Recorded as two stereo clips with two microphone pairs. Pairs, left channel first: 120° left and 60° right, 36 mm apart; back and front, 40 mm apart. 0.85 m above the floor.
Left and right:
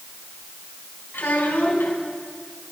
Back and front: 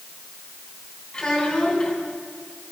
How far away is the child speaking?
About 5.5 m.